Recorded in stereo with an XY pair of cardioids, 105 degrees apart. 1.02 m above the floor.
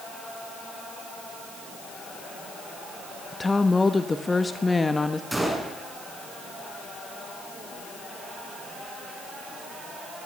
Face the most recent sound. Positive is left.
turn(degrees=-10)